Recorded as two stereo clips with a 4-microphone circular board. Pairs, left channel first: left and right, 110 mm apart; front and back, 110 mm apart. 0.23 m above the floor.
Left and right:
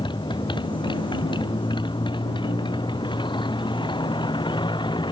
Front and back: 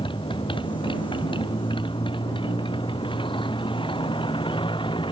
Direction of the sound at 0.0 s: 45° left.